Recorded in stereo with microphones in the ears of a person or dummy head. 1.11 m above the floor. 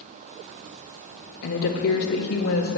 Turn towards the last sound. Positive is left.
turn(degrees=65)  # may be behind; listen again after turning